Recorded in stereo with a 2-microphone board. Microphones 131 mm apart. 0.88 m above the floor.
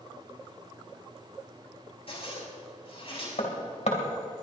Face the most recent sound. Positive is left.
turn(degrees=60)  # may be behind; listen again after turning